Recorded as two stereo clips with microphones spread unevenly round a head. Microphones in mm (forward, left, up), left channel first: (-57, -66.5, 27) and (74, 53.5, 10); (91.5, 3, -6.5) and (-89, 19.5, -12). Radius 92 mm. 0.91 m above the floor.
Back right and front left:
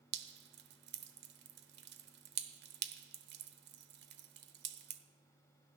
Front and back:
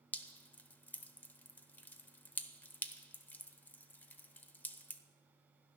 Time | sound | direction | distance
0.1 | dripping | 75° left | 0.9 m